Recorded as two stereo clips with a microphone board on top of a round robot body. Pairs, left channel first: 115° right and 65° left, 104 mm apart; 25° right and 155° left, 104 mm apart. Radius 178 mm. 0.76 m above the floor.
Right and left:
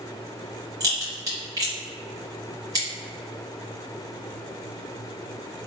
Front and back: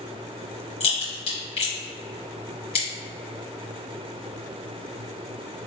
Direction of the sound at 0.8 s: 5° left.